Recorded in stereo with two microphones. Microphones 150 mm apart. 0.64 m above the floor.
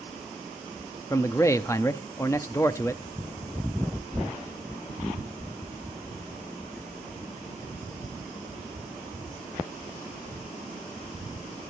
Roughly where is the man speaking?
Centre.